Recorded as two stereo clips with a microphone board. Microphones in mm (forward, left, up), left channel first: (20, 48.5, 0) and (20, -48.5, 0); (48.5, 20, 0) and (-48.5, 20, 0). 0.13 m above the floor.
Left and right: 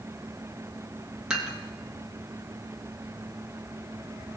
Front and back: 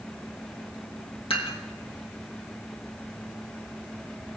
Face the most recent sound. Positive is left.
turn(degrees=-5)